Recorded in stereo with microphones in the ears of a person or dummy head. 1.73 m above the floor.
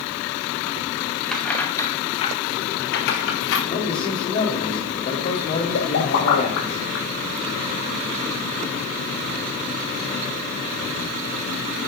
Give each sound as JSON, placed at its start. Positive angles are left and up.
{"t": 1.3, "sound": "keys jangling", "side_deg": 0, "distance_m": 2.0}
{"t": 3.7, "sound": "a man speaking", "side_deg": 40, "distance_m": 3.5}
{"t": 5.7, "sound": "a pop", "side_deg": 80, "distance_m": 3.5}